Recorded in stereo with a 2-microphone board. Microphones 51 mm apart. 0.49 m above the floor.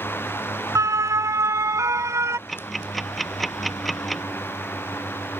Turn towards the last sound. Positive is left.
turn(degrees=0)  # may be behind; listen again after turning